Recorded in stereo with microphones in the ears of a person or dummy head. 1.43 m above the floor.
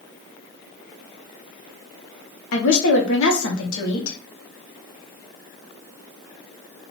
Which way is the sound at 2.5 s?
75° left (ahead or behind).